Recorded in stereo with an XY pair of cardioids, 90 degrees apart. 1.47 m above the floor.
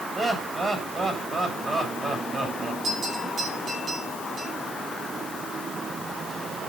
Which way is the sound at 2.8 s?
55° right.